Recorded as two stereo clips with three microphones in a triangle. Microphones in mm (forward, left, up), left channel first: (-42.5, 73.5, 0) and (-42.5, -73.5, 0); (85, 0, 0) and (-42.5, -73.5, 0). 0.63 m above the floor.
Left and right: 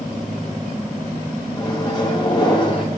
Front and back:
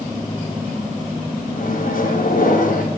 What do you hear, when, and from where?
1.6 s a microwave: 30° left, 2.5 m